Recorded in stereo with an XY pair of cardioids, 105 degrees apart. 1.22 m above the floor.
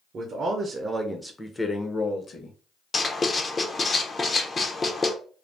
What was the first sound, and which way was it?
A man speaking, 55° right.